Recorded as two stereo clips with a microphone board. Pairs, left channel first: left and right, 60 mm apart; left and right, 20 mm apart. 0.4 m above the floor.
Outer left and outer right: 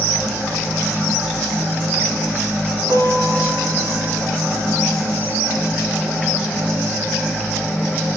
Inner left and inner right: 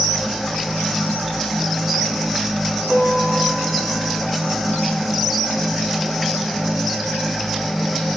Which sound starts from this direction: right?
A guitar, at 2.9 s.